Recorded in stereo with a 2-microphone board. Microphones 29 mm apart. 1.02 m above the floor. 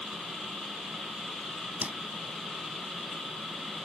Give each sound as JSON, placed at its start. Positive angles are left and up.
{"t": 1.8, "sound": "a whoosh", "side_deg": -65}